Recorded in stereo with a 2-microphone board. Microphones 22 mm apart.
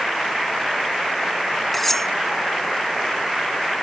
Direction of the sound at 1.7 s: 15° left (ahead or behind).